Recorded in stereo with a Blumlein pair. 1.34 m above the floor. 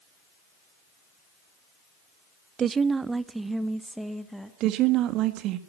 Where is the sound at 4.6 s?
35° right, 1.9 m.